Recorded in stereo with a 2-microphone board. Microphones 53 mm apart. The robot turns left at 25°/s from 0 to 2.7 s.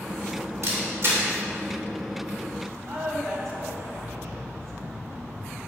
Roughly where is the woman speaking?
Right.